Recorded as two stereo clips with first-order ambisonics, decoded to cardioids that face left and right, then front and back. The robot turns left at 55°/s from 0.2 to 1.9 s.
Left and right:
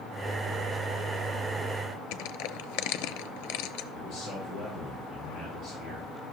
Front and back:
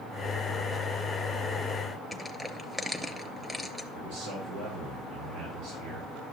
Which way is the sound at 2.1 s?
95° left.